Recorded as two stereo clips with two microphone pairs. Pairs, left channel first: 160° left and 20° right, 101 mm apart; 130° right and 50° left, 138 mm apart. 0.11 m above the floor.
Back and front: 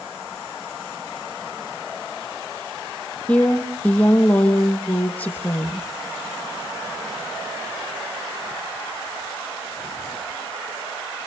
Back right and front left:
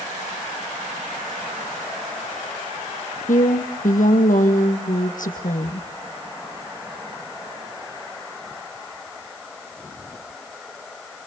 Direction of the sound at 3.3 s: 125° right.